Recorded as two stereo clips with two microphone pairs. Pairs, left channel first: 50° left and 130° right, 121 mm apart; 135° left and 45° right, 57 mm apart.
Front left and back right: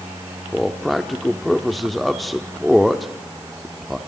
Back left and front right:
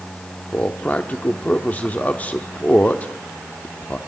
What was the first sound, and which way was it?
A man speaking, 140° left.